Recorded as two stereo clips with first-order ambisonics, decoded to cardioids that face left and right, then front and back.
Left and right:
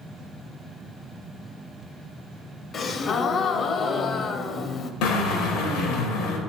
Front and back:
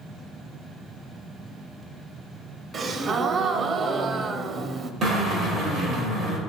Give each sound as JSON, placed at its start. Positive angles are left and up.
{"t": 2.7, "sound": "a gasp", "azimuth_deg": 135, "distance_m": 0.5}
{"t": 5.0, "sound": "a drill", "azimuth_deg": 120, "distance_m": 2.5}